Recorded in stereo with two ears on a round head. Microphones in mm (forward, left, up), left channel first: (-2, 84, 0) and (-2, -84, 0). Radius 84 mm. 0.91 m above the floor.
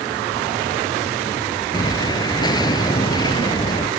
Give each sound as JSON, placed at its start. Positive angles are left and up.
{"t": 1.7, "sound": "an explosion", "side_deg": 20}